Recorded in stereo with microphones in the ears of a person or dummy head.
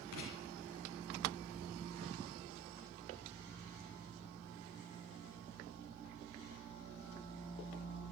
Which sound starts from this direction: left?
Writing, at 0.1 s.